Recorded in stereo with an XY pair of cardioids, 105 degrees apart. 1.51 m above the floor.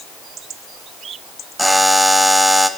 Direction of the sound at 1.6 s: 5° right.